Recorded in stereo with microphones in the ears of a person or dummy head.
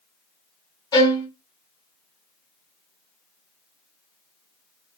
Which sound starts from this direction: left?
A violin, at 0.9 s.